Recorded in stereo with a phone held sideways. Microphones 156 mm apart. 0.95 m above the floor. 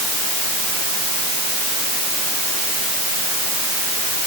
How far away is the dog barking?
No dog barking in this recording.